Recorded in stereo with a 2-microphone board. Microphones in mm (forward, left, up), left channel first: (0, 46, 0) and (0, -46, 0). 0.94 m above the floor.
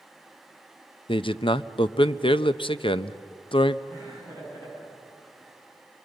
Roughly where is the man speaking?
Left.